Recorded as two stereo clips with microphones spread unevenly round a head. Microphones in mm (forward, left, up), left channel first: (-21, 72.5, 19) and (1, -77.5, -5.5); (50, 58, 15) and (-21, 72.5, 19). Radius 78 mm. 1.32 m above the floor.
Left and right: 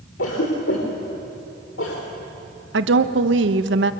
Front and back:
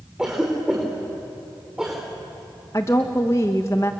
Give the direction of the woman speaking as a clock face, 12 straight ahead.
3 o'clock.